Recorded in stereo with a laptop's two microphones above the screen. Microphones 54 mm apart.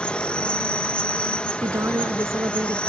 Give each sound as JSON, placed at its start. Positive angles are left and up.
{"t": 0.0, "sound": "an insect", "side_deg": 20}
{"t": 1.6, "sound": "a woman speaking", "side_deg": -60}